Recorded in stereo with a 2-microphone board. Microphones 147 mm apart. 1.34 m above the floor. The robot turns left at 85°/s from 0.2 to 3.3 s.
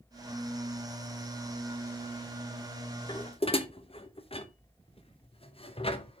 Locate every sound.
3.1 s dishes clattering: 30° left (ahead or behind), 0.7 m; by 6.2 s 40° left (ahead or behind), 0.7 m